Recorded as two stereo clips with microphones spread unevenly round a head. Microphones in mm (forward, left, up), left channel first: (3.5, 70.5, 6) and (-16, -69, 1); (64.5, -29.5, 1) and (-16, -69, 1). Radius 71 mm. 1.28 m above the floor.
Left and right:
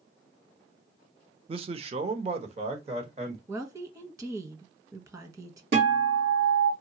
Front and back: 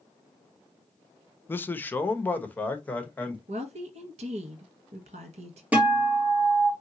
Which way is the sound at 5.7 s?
80° right.